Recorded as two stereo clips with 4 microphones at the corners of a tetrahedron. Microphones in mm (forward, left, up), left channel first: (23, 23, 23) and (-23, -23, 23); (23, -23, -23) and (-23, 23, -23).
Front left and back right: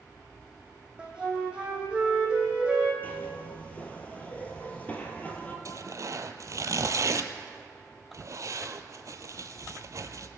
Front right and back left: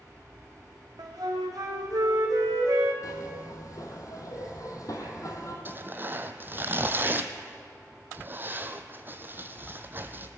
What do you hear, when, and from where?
1.0 s a flute: 150° left, 2.5 m
3.0 s a zipper: 20° right, 2.0 m
5.7 s tearing paper: 170° right, 0.8 m